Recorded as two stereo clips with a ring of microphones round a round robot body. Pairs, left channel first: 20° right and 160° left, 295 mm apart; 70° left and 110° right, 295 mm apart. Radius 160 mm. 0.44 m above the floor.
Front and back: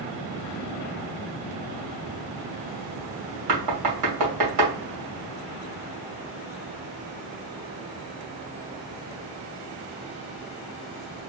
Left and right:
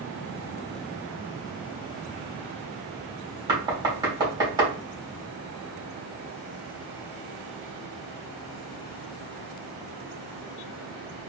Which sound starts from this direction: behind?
Knocking, at 3.5 s.